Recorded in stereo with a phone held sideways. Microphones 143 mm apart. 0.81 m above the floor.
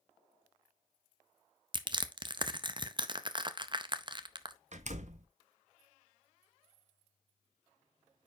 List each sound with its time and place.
1.7 s crushing: 35° right (ahead or behind), 0.5 m
4.7 s a door slam: 55° right (ahead or behind), 0.6 m